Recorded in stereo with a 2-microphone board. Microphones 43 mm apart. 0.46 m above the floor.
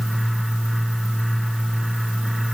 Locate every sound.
Only background noise.